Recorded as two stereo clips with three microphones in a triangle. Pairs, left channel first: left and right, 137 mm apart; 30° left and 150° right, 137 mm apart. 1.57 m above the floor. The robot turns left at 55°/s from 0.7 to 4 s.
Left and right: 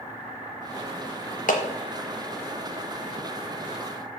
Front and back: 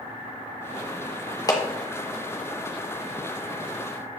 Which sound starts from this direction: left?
A clap, at 1.5 s.